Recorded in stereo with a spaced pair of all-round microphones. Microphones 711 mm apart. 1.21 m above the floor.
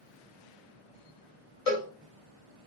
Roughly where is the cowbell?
Left.